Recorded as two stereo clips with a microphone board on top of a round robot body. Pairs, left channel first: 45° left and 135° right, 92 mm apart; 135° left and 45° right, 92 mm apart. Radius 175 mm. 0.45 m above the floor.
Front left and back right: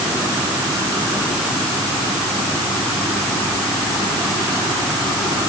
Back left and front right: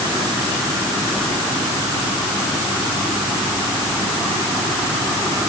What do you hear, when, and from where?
Only background noise.